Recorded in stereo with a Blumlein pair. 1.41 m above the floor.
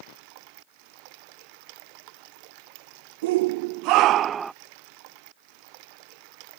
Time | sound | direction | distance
3.2 | a shout | 50° right | ?